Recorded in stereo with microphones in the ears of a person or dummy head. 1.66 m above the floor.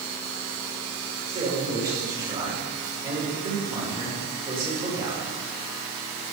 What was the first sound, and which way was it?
A man speaking, 25° right (ahead or behind).